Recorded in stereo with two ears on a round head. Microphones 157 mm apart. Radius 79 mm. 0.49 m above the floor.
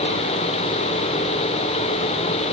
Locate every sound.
Only background noise.